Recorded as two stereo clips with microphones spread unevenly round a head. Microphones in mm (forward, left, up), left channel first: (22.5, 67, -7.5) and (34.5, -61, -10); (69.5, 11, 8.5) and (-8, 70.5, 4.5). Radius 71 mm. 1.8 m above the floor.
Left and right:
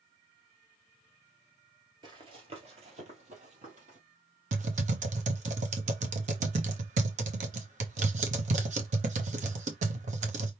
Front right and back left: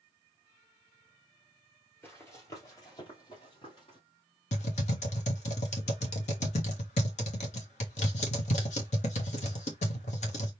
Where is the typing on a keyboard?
55° right, 1.2 m.